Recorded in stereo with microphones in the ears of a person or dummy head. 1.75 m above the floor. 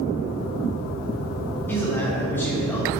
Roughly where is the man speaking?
Centre.